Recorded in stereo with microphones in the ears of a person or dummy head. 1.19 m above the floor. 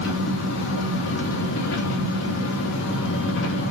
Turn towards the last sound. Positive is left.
turn(degrees=80)